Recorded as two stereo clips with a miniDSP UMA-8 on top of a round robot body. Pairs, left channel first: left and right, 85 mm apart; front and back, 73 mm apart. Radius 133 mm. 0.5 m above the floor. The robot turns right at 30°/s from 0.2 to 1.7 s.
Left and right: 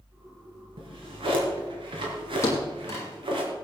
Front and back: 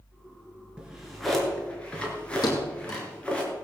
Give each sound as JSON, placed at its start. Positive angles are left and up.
{"t": 0.8, "sound": "a drawer", "azimuth_deg": -105, "distance_m": 3.0}
{"t": 2.4, "sound": "a thud", "azimuth_deg": 35, "distance_m": 2.0}